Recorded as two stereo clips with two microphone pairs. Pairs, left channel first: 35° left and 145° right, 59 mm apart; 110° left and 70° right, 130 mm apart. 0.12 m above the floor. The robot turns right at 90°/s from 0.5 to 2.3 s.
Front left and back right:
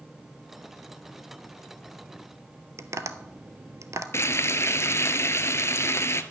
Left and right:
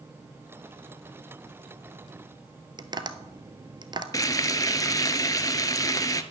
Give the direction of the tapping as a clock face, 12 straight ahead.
4 o'clock.